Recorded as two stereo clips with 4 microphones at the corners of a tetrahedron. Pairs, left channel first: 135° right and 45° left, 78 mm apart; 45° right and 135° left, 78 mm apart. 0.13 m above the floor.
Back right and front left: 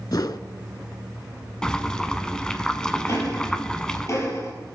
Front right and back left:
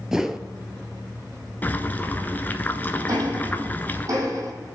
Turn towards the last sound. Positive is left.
turn(degrees=175)